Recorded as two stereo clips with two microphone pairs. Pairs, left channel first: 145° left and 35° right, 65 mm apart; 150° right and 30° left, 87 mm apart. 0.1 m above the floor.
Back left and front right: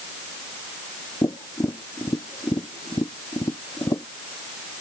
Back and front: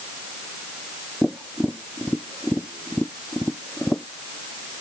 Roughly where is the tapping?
Behind left.